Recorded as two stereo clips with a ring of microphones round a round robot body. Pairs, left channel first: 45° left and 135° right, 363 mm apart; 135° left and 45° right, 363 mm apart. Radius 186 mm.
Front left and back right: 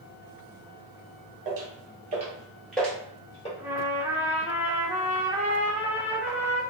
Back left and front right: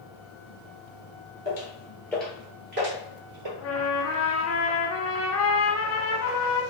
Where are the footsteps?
Straight behind, 1.2 m; by 3.5 s 25° right, 1.3 m.